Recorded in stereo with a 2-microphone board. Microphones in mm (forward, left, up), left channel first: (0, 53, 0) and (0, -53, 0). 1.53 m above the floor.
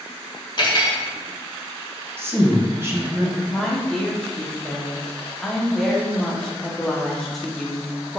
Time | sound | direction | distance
0.6 | cutlery clinking | 45° left (ahead or behind) | 1.0 m
2.2 | a woman speaking | 20° right (ahead or behind) | 0.7 m
3.5 | a woman speaking | centre (ahead or behind) | 0.7 m